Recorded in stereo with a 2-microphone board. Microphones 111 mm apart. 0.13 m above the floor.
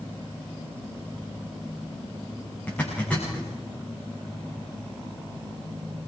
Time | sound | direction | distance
2.7 | a zipper | 15° left (ahead or behind) | 8.5 m